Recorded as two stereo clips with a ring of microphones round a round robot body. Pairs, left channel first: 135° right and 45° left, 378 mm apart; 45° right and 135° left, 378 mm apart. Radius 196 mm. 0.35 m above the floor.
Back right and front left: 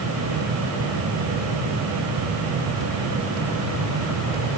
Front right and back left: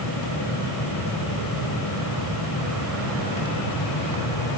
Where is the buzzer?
I don't hear a buzzer.